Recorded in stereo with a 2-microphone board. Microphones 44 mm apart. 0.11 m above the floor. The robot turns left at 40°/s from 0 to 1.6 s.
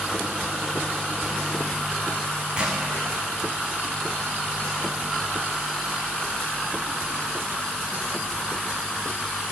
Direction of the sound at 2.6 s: 20° right (ahead or behind).